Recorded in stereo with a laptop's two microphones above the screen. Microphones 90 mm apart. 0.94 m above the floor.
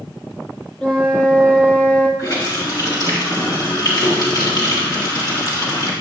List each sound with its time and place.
0.8 s a flute: 15° left (ahead or behind), 1.1 m
2.2 s a running tap: 50° left (ahead or behind), 1.3 m